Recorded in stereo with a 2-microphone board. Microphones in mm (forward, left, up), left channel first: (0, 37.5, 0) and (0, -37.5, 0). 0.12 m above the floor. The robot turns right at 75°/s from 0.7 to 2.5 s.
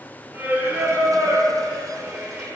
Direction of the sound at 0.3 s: 150° right.